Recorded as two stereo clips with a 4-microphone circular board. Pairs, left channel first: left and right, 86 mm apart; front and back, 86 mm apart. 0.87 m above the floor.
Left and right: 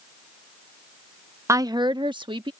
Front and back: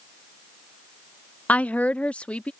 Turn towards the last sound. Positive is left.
turn(degrees=-75)